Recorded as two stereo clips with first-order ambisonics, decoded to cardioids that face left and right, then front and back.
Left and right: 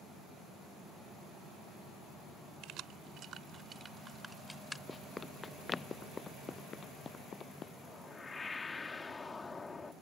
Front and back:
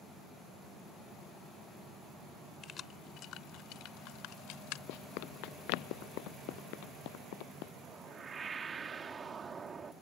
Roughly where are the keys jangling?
Ahead right.